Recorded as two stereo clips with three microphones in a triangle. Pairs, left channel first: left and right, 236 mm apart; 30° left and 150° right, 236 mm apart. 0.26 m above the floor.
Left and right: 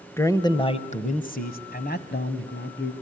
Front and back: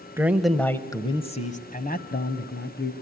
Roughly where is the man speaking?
Behind left.